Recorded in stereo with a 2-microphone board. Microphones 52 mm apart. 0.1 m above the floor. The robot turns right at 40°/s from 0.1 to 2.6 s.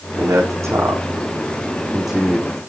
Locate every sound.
0.2 s a man speaking: 80° right, 5.5 m; by 2.6 s 10° left (ahead or behind), 5.5 m